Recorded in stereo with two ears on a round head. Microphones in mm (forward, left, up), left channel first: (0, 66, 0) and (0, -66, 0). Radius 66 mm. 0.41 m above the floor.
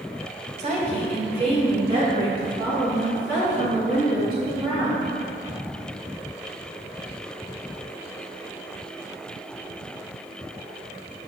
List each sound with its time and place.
0.6 s a woman speaking: 45° right (ahead or behind), 1.4 m; by 5.1 s 25° right (ahead or behind), 6 m